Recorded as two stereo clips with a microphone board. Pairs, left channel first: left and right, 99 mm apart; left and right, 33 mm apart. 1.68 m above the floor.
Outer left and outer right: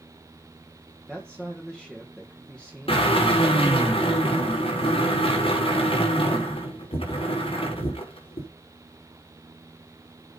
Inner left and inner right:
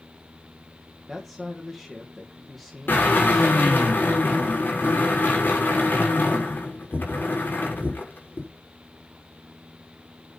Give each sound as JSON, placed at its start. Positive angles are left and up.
{"t": 1.1, "sound": "a man speaking", "side_deg": 10, "distance_m": 2.0}
{"t": 2.9, "sound": "a drill", "side_deg": 70, "distance_m": 6.0}